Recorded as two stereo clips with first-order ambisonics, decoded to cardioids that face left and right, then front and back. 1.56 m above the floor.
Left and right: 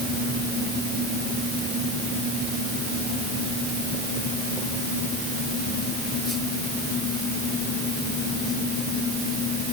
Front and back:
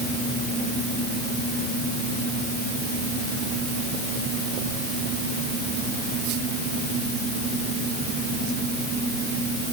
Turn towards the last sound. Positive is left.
No sound to turn to.